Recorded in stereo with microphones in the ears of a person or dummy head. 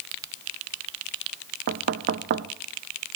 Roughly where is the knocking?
Right.